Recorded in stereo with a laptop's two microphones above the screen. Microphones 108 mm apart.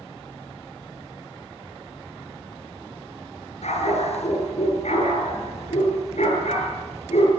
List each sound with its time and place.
3.6 s a dog barking: 85° left, 7 m